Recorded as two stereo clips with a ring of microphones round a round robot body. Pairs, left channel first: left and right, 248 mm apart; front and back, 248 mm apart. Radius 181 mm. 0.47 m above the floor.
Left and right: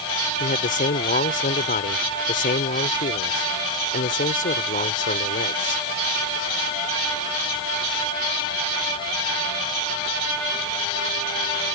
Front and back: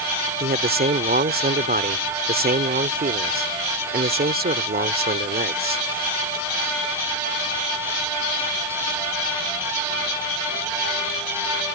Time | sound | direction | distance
0.4 | a man speaking | 140° left | ?